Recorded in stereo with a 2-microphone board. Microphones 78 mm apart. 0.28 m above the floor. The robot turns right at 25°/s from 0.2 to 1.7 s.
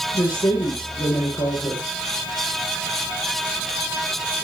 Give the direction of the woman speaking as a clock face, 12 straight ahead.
10 o'clock.